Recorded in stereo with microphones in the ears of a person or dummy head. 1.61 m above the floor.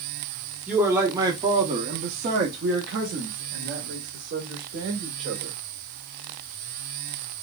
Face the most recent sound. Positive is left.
turn(degrees=-65)  # may be behind; listen again after turning